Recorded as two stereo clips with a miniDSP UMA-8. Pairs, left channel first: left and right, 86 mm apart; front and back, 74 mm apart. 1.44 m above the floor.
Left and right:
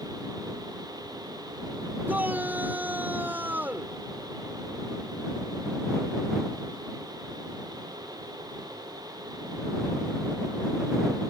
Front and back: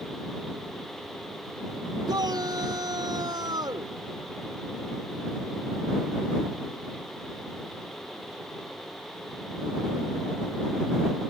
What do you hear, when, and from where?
2.1 s a shout: 160° right